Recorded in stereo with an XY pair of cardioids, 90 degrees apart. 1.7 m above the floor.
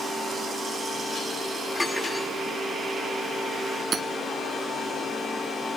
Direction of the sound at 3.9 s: 55° right.